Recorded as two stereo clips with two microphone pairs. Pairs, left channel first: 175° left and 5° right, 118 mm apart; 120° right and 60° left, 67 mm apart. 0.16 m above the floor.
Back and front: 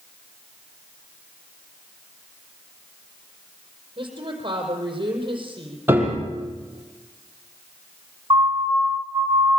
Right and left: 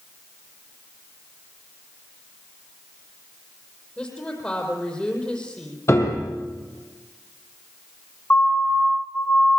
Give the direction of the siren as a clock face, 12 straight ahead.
2 o'clock.